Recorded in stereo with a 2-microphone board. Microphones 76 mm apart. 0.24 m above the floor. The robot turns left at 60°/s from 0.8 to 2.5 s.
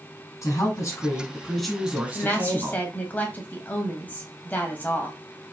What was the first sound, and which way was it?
A woman speaking, 55° left.